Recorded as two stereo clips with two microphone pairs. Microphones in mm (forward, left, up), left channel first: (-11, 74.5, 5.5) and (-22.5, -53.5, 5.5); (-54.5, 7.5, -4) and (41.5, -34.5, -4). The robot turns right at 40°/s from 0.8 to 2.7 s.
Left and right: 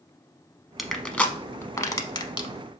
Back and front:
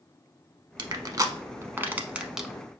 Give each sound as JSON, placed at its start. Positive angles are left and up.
{"t": 0.8, "sound": "crushing", "azimuth_deg": -5, "distance_m": 0.6}